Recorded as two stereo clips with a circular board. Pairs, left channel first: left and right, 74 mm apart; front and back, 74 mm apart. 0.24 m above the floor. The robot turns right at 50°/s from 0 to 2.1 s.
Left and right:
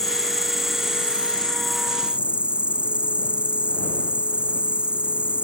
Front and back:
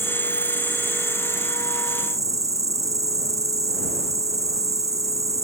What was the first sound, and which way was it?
An insect, 95° left.